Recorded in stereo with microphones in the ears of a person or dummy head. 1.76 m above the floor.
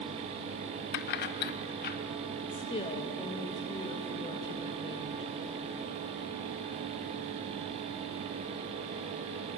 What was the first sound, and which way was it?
Keys jangling, 50° left (ahead or behind).